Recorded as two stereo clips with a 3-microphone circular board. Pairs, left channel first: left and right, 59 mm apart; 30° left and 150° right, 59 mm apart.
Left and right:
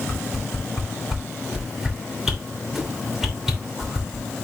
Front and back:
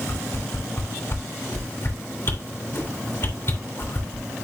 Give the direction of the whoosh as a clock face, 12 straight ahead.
12 o'clock.